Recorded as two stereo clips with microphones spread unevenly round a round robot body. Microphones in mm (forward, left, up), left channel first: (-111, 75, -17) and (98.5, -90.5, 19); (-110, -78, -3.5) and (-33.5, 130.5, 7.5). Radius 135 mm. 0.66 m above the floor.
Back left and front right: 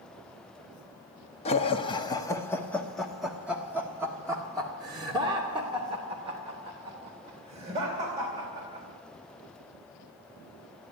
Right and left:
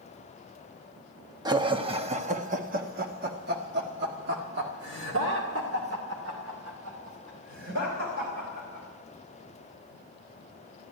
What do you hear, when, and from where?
1.4 s laughter: 130° left, 1.2 m; by 8.8 s 30° left, 4 m